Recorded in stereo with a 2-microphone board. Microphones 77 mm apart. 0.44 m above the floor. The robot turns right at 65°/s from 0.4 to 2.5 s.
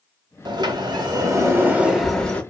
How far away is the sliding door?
About 1.1 m.